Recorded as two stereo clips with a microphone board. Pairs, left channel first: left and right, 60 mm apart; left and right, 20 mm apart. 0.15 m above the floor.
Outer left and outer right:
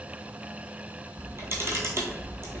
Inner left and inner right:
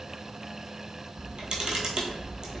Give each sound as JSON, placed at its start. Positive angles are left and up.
{"t": 1.2, "sound": "a camera shutter", "side_deg": -45, "distance_m": 0.7}